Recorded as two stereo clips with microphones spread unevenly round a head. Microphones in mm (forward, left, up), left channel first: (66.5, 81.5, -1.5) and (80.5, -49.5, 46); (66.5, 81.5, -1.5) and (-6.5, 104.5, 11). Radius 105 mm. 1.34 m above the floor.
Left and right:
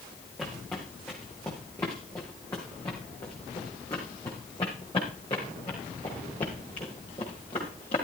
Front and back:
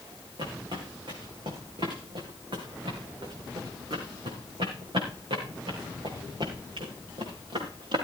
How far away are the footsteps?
About 4 m.